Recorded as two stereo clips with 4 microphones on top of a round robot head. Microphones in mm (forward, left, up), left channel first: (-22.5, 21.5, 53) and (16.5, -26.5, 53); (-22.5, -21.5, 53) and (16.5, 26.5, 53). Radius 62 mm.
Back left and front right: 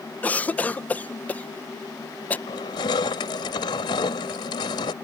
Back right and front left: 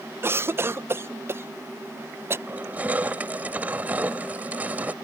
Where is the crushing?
120° left.